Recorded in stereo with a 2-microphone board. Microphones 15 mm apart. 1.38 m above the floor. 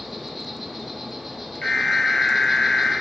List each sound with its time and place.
0.0 s an insect: 10° right (ahead or behind), 1.1 m
1.6 s an alarm: 75° left (ahead or behind), 2 m